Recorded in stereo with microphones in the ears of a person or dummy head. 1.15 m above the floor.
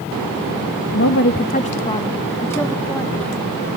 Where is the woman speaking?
70° left (ahead or behind), 0.9 m; by 3.5 s 5° left (ahead or behind), 3 m.